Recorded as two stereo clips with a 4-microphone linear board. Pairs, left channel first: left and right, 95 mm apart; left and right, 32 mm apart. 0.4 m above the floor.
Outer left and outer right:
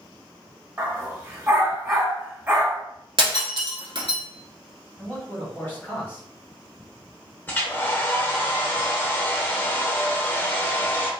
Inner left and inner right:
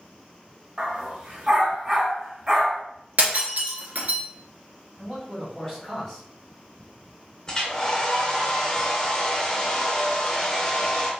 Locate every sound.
0.8 s a dog barking: 25° right (ahead or behind), 1.1 m
3.2 s breaking glass: 65° right (ahead or behind), 0.9 m
5.0 s a man speaking: 20° left (ahead or behind), 1.4 m
7.5 s a hair dryer: 20° left (ahead or behind), 0.6 m